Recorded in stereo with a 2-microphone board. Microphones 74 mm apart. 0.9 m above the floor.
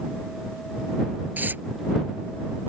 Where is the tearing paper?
25° right (ahead or behind).